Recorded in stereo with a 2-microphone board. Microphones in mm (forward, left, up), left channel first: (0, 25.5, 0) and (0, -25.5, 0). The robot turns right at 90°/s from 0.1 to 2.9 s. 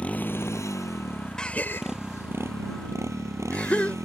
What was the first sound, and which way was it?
A motorcycle, 30° left.